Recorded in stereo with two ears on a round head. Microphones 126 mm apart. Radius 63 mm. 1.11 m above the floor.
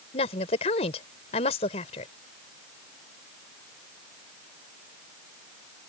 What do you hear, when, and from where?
0.1 s a woman speaking: 45° left (ahead or behind)